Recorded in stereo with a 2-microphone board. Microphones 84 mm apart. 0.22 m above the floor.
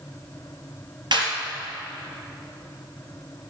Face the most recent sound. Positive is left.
turn(degrees=-65)  # may be behind; listen again after turning